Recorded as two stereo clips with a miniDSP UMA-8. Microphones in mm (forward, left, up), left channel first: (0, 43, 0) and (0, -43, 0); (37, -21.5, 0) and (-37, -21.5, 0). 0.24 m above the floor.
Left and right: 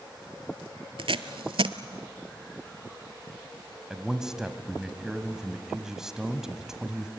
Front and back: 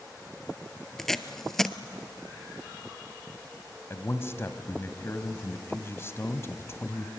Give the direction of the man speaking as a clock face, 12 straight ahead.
12 o'clock.